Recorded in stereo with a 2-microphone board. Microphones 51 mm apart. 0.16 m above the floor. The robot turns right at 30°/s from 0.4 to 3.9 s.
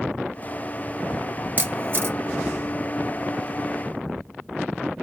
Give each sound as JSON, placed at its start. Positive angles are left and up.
{"t": 1.6, "sound": "a camera shutter", "side_deg": -40, "distance_m": 1.0}